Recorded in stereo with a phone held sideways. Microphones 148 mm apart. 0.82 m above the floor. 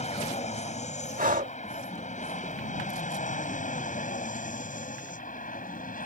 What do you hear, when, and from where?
0.0 s an aircraft: 50° left (ahead or behind); by 6.1 s 65° left (ahead or behind)
1.2 s breathing: 65° right (ahead or behind)